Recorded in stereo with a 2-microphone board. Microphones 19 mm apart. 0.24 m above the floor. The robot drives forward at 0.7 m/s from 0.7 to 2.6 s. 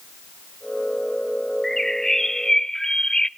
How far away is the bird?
About 0.8 m.